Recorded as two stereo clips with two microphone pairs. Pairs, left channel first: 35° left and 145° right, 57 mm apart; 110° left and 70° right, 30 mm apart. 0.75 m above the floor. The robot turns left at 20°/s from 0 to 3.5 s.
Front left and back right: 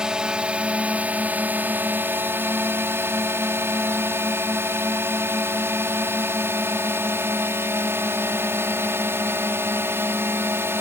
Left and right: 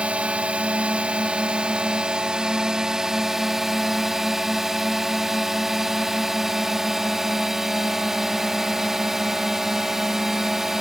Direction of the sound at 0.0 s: 75° right.